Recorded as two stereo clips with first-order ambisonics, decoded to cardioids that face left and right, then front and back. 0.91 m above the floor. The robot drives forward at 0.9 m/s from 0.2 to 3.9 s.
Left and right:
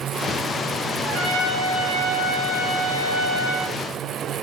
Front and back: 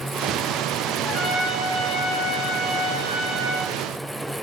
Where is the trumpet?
70° right, 4 m; by 3.8 s 110° right, 4 m.